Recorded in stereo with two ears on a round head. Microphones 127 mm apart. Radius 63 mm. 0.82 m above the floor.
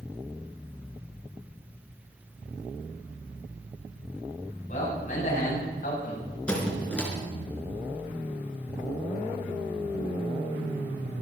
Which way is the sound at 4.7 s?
55° left (ahead or behind).